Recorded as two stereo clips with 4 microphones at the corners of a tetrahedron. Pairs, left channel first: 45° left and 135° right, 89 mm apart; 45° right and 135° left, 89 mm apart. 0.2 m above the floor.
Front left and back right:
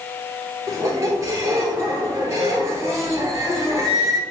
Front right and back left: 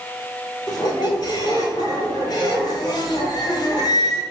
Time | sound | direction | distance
0.7 | a squeak | 80° right | 0.9 m